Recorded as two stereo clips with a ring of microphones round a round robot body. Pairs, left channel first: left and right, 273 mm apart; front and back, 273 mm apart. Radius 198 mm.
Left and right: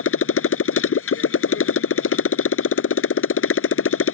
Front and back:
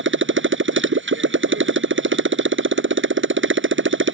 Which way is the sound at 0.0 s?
130° left.